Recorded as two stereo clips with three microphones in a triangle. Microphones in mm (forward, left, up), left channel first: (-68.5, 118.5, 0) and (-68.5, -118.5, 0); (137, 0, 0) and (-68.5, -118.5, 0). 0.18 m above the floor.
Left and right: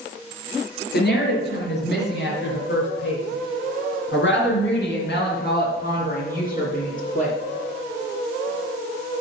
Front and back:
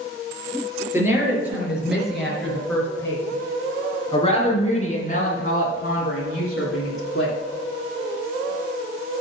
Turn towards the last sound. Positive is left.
turn(degrees=35)